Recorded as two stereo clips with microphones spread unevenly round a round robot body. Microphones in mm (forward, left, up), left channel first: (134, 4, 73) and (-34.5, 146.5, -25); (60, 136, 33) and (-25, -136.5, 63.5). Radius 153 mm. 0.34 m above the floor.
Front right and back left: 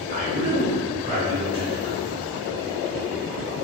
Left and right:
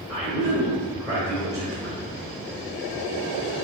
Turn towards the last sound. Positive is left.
turn(degrees=170)